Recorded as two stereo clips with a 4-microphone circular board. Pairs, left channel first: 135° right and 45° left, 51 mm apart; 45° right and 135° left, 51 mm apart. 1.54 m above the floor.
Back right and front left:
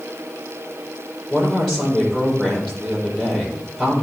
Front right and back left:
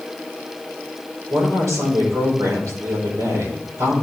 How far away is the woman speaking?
About 4.5 m.